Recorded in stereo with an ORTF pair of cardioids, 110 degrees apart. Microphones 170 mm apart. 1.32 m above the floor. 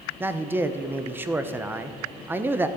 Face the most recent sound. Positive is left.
turn(degrees=-15)